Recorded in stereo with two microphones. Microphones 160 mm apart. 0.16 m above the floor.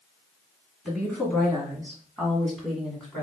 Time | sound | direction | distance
0.8 | a woman speaking | 5° left (ahead or behind) | 1.8 m